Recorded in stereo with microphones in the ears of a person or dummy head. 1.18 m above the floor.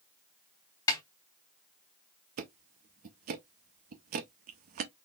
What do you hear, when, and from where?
0.9 s a snare drum: 20° left (ahead or behind), 1.1 m
2.4 s ticking: 45° right (ahead or behind), 0.7 m